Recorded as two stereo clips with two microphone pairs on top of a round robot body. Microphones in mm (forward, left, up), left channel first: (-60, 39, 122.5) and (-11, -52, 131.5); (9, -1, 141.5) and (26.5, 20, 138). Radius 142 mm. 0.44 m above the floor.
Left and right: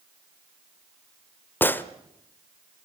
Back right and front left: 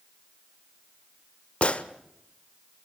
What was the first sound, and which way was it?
A gunshot, 170° right.